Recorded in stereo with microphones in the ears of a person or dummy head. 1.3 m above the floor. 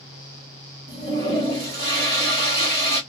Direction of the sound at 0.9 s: 55° right (ahead or behind).